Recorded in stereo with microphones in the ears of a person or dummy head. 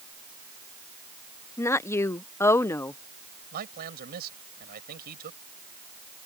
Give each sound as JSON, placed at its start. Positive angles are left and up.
{"t": 1.6, "sound": "a woman speaking", "side_deg": 20}
{"t": 3.5, "sound": "a man speaking", "side_deg": -55}